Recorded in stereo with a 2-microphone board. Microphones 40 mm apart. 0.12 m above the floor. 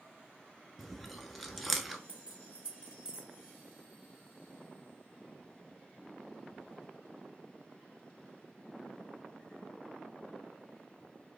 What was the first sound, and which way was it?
Chewing, 5° left (ahead or behind).